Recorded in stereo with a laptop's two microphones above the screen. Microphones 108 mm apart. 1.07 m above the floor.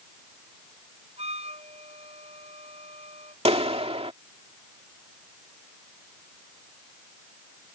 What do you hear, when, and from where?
1.2 s a flute: 80° right
3.5 s a clap: 70° right (ahead or behind)